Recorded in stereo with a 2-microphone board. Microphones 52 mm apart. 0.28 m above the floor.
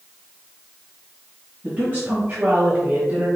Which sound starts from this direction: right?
A woman speaking, at 1.6 s.